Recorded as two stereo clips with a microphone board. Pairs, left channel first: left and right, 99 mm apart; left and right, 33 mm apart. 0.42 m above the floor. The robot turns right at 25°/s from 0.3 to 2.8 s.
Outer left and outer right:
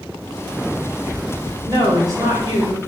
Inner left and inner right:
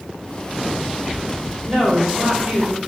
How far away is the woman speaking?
About 1.9 m.